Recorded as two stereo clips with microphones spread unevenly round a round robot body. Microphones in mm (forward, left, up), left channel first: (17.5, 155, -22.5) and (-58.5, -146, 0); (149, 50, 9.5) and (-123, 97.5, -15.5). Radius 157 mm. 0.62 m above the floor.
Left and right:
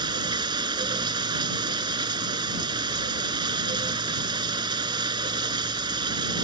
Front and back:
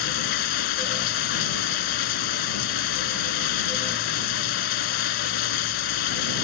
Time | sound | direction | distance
0.0 | running water | 25° right | ?